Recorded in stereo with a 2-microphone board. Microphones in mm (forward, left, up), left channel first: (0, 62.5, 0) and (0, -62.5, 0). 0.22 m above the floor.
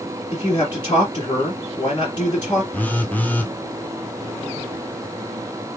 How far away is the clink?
No clink in this recording.